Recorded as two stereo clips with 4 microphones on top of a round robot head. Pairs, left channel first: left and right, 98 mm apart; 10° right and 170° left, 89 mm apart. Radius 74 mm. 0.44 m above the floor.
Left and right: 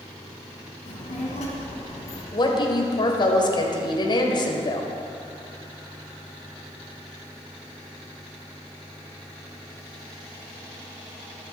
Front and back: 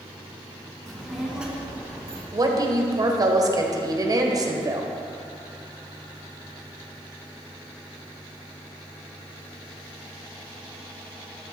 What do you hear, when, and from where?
0.9 s a child speaking: 75° left, 2.5 m; by 2.2 s 105° left, 3.5 m
2.3 s a woman speaking: 125° left, 1.6 m